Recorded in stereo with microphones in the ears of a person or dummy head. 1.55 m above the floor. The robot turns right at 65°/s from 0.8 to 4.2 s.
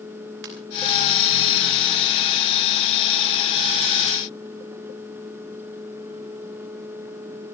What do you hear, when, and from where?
0.4 s a ringtone: 75° right (ahead or behind), 4 m